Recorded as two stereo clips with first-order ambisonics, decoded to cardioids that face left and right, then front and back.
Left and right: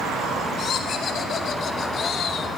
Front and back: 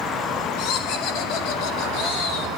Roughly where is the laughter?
Ahead left.